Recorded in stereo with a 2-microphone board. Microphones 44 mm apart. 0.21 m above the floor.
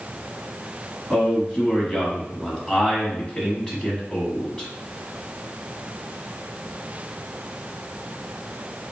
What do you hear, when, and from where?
1.1 s a man speaking: 20° left (ahead or behind), 1.2 m